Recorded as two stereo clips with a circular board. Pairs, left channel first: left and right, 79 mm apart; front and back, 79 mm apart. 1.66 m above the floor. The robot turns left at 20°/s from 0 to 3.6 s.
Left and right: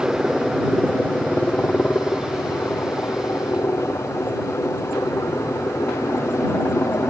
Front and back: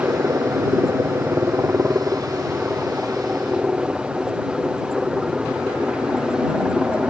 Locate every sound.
0.0 s a helicopter: 175° left; by 7.1 s 105° left